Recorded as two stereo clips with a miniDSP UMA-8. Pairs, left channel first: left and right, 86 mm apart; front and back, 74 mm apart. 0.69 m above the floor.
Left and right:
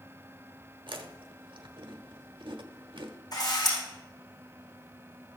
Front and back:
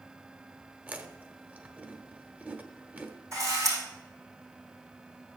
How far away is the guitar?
I don't hear a guitar.